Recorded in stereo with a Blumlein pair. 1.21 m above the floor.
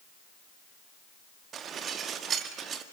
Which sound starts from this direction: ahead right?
Dishes clattering, at 1.5 s.